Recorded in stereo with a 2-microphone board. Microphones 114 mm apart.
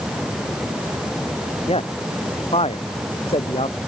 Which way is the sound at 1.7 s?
60° left (ahead or behind).